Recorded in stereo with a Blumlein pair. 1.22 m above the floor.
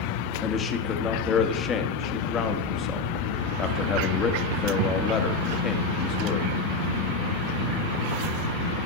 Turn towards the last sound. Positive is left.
turn(degrees=25)